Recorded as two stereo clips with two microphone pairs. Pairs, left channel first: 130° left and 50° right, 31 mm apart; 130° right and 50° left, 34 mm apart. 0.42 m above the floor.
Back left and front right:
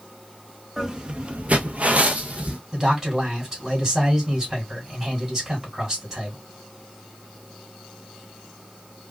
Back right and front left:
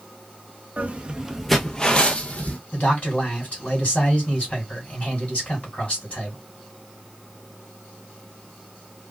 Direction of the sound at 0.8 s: 20° left.